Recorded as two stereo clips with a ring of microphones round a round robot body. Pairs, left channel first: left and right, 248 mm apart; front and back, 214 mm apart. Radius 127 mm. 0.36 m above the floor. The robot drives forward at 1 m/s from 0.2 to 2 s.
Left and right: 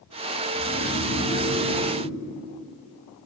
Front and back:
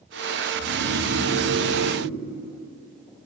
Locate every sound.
0.6 s snoring: straight behind, 1.0 m